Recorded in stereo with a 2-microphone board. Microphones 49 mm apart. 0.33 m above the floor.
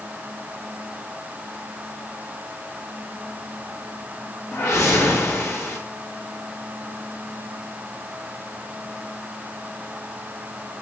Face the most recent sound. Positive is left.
turn(degrees=65)  # may be behind; listen again after turning